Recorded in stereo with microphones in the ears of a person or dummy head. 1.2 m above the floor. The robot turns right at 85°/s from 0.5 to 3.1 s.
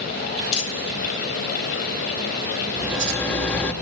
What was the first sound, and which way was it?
Crumpling, 75° left (ahead or behind).